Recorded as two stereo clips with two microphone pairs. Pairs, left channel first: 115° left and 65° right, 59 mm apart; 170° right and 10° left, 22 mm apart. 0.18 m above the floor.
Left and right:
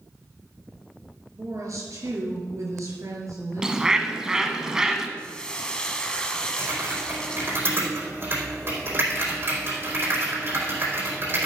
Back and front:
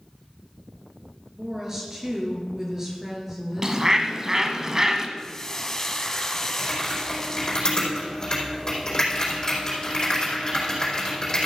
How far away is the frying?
About 1.3 m.